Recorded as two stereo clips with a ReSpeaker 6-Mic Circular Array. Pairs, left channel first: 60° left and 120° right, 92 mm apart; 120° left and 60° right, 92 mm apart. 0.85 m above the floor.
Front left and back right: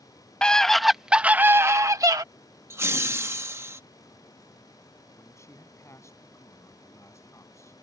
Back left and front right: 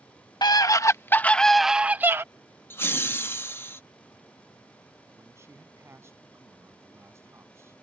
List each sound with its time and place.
0.4 s a scream: 135° left; by 2.2 s 110° right
2.7 s laughter: straight behind
5.1 s a man speaking: straight ahead